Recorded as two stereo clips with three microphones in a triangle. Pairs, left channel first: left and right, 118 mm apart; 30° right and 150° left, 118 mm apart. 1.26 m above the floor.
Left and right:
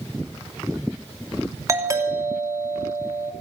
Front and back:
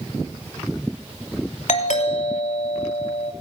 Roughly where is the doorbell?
Ahead right.